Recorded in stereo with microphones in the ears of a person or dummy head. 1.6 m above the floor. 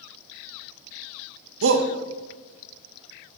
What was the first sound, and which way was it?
A shout, 70° right (ahead or behind).